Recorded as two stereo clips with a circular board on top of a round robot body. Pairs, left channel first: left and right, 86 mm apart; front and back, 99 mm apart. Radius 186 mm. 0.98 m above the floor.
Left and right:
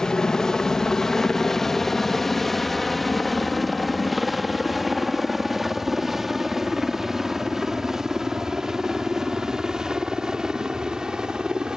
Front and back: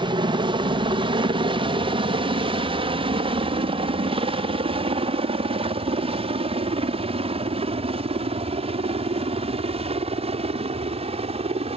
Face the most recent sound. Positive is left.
turn(degrees=-170)